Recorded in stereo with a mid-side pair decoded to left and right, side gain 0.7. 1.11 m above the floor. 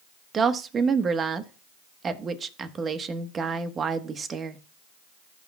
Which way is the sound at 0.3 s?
30° right.